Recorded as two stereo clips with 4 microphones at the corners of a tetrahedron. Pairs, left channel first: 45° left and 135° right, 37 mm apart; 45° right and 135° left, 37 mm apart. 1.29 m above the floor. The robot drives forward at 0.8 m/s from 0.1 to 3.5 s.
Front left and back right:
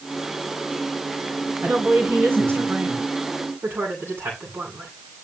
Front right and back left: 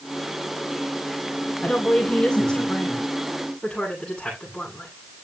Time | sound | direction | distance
1.6 | a woman speaking | 100° right | 7.5 m